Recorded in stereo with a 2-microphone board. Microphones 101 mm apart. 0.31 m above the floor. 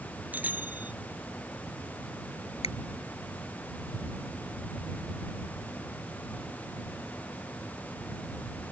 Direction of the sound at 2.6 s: 75° left (ahead or behind).